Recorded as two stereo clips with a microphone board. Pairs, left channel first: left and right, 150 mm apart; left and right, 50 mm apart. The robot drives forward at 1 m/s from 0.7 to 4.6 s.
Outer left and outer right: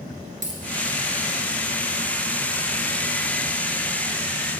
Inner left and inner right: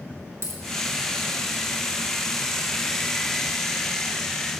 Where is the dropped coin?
60° right (ahead or behind), 2.0 m.